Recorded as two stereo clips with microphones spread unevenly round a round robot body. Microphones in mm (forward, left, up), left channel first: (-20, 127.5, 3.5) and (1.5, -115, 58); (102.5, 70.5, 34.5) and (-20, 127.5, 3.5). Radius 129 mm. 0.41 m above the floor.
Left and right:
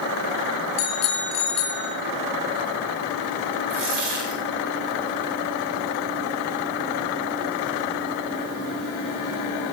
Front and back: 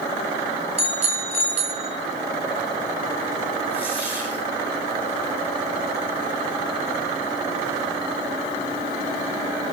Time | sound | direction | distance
0.8 | a bicycle bell | 115° left | 3.5 m
3.7 | a dropped coin | 95° right | 8 m